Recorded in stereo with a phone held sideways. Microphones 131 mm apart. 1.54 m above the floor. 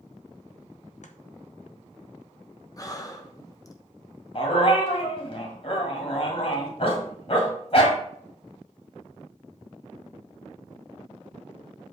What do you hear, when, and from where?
1.0 s chopping: 65° left (ahead or behind), 0.9 m
2.8 s breathing: 25° left (ahead or behind), 1.0 m
4.3 s a dog barking: 50° left (ahead or behind), 1.9 m